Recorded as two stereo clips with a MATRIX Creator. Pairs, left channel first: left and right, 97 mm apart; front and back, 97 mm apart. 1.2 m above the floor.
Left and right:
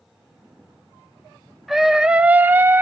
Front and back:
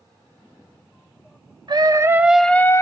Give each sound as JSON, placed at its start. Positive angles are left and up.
{"t": 1.7, "sound": "a scream", "azimuth_deg": -175, "distance_m": 0.7}